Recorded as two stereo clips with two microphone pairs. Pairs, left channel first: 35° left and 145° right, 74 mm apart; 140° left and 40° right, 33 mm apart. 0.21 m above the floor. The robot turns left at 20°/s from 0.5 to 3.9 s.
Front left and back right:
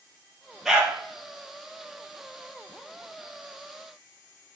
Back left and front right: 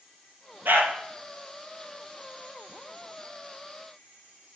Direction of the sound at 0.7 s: 60° right.